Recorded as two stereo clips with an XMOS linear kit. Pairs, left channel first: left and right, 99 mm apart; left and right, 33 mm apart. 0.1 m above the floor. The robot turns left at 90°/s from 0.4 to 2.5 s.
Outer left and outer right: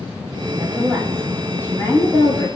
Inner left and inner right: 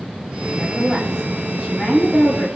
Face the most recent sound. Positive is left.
turn(degrees=80)